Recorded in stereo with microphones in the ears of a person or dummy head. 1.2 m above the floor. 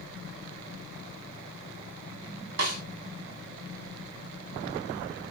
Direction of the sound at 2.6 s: 55° right (ahead or behind).